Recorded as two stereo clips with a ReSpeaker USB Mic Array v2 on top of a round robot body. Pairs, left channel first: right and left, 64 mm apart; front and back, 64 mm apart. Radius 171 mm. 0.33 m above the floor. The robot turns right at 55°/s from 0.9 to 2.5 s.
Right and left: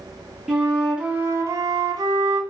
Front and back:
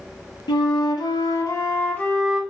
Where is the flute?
10° left, 0.5 m; by 2.4 s 90° left, 0.5 m.